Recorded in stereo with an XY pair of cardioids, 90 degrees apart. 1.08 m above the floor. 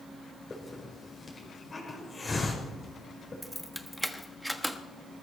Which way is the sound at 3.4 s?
5° right.